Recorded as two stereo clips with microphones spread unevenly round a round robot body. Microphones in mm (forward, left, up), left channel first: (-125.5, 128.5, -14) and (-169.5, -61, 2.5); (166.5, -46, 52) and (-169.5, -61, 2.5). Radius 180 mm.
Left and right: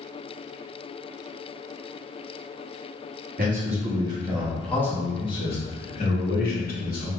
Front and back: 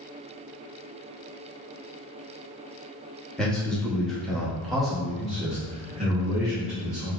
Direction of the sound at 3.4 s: 95° right.